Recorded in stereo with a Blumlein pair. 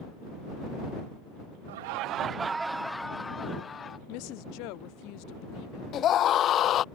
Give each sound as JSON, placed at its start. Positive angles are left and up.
{"t": 1.7, "sound": "laughter", "azimuth_deg": -55}
{"t": 4.1, "sound": "a woman speaking", "azimuth_deg": 45}
{"t": 5.9, "sound": "a scream", "azimuth_deg": 30}